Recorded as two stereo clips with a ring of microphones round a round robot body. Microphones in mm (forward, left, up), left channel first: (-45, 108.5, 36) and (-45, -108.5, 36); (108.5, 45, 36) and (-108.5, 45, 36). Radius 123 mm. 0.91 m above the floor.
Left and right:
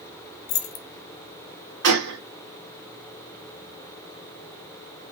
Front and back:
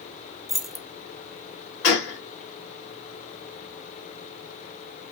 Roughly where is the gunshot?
Ahead right.